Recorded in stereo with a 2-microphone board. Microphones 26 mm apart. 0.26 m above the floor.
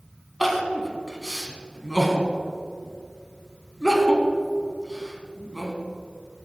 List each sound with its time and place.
0.4 s crying: 5° right (ahead or behind), 2.0 m